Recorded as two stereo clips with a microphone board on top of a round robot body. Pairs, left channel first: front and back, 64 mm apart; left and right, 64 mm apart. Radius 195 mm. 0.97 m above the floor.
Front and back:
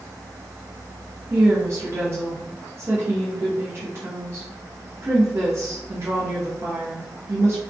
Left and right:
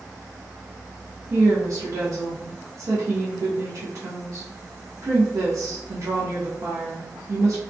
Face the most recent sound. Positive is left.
turn(degrees=-130)